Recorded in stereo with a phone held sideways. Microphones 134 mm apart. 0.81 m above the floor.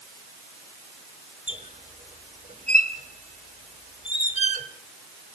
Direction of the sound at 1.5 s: 55° right (ahead or behind).